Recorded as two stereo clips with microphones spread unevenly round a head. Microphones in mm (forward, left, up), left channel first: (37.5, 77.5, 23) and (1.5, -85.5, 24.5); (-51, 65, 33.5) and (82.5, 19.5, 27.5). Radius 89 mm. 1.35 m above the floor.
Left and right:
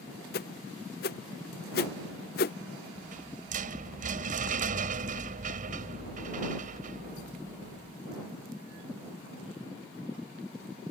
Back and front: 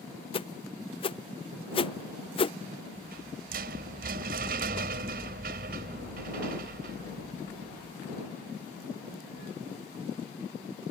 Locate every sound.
0.3 s a whoosh: 115° left
3.0 s a rattle: 60° right